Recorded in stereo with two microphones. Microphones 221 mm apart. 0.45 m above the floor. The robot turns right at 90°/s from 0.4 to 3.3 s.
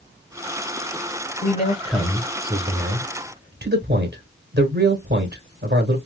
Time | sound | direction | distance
1.4 | a man speaking | 115° left | 1.1 m